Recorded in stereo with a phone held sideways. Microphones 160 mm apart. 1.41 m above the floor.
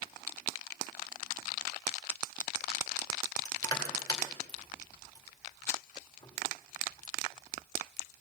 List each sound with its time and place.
3.5 s crushing: 25° left (ahead or behind), 2 m